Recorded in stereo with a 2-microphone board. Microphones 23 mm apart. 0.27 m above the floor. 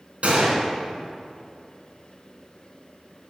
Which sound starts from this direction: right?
A gunshot, at 0.2 s.